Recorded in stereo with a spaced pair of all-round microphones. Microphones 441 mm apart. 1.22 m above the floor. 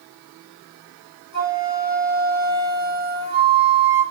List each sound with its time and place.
1.3 s a flute: 50° right (ahead or behind), 4 m